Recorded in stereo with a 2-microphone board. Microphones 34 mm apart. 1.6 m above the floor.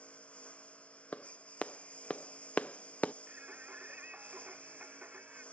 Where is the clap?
45° left (ahead or behind).